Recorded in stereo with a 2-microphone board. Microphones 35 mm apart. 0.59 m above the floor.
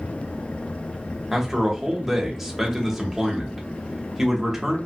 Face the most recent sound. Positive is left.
turn(degrees=-5)  # may be behind; listen again after turning